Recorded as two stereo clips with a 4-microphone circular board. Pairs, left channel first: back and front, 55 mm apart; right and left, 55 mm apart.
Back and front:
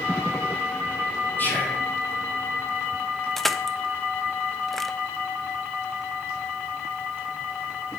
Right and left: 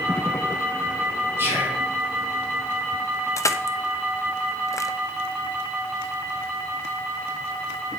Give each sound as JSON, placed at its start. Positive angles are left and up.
{"t": 1.4, "sound": "whispering", "azimuth_deg": 130, "distance_m": 7.0}
{"t": 3.4, "sound": "crushing", "azimuth_deg": -95, "distance_m": 0.6}